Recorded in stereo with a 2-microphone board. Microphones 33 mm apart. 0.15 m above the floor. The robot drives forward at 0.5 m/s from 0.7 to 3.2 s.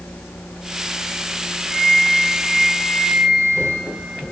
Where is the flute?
20° right (ahead or behind), 1.8 m.